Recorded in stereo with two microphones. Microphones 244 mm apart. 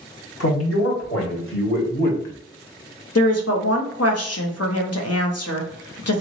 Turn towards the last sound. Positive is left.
turn(degrees=80)